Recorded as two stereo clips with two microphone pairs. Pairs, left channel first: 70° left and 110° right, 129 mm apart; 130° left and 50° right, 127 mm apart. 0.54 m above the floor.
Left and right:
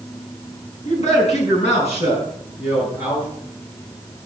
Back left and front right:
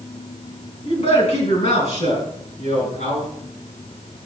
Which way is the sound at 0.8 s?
95° left.